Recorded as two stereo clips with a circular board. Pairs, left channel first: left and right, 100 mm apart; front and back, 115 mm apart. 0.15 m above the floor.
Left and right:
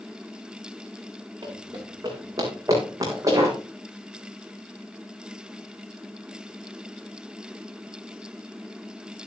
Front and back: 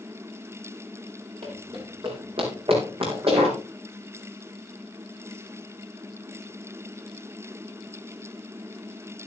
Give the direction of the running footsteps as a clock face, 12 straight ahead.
5 o'clock.